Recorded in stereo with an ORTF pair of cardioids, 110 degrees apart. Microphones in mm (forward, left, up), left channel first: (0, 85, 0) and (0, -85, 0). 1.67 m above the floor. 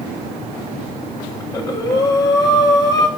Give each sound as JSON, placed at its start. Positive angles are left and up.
{"t": 1.4, "sound": "breathing", "azimuth_deg": 20, "distance_m": 6.5}